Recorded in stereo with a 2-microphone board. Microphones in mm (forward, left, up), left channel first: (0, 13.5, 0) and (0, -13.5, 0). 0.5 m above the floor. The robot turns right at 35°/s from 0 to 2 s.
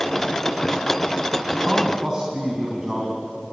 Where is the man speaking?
10° right (ahead or behind), 4 m; by 3.2 s 25° right (ahead or behind), 4 m.